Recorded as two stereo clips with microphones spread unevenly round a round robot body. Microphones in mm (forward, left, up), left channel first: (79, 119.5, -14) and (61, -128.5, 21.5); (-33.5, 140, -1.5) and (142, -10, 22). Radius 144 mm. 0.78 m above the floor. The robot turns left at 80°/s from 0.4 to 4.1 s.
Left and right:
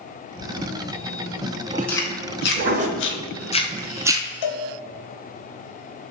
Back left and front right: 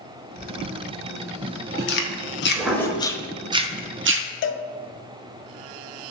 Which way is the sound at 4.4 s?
100° left.